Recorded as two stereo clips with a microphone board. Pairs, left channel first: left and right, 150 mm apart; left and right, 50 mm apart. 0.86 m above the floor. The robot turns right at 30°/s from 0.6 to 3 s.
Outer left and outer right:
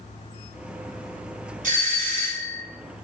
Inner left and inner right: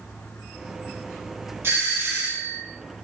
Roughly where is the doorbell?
Right.